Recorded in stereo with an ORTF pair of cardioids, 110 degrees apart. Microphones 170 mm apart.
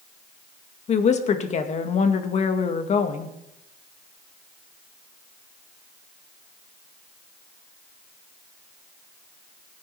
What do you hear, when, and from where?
0.9 s a woman speaking: 45° left, 1.9 m